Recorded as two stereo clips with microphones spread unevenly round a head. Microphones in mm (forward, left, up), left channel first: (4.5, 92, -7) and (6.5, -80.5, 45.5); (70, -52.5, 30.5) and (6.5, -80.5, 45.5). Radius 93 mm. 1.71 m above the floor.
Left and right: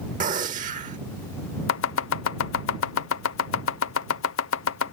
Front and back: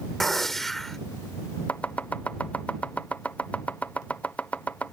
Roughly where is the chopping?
Left.